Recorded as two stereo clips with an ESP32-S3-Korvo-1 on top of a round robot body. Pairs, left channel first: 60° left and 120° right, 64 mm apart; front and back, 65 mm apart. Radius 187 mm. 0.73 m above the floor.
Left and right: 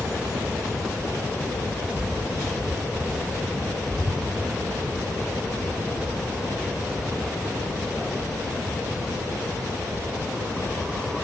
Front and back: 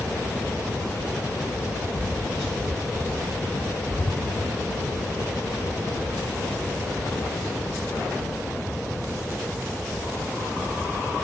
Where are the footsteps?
45° left, 0.9 m; by 4.2 s 45° right, 1.2 m.